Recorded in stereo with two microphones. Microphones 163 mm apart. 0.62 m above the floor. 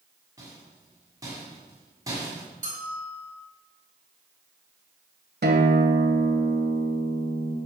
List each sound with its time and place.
0.4 s a rattle: 20° right (ahead or behind), 4 m
2.6 s a bell: 60° right (ahead or behind), 2.5 m
5.4 s a guitar: 85° right, 1.5 m